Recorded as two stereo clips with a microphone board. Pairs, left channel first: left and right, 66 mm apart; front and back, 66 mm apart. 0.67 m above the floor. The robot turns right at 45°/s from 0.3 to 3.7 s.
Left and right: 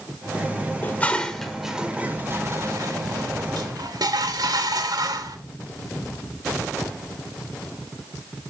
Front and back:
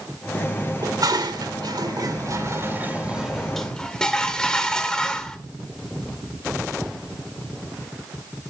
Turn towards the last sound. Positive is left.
turn(degrees=-80)